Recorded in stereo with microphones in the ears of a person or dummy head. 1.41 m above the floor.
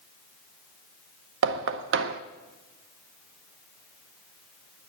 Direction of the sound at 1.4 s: 65° right (ahead or behind).